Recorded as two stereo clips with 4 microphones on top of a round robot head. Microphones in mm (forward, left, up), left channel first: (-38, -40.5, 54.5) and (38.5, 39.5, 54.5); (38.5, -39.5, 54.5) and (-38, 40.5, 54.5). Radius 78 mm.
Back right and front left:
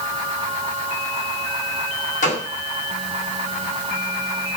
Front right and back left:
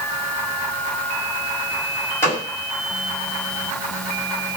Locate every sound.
2.2 s a gunshot: 115° right, 5.5 m